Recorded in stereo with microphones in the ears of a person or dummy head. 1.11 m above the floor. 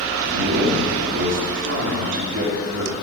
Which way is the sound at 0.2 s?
60° right (ahead or behind).